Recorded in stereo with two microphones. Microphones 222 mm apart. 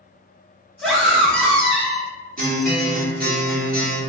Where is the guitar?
40° right (ahead or behind), 0.9 m.